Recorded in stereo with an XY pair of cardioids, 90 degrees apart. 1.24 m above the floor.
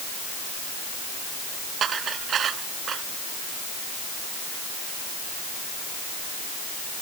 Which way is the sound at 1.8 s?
65° right.